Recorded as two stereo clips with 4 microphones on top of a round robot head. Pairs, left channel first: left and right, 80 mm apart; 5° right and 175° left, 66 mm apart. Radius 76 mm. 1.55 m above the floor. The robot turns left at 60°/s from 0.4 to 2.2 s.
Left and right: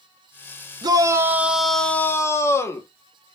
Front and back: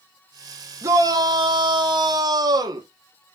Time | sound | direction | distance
0.8 | a shout | 130° right | 2.0 m